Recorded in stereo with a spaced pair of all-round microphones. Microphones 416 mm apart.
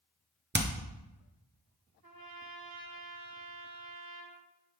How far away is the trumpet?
About 1.1 m.